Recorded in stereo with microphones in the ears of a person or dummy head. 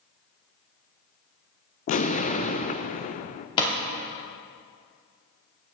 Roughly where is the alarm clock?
No alarm clock in this recording.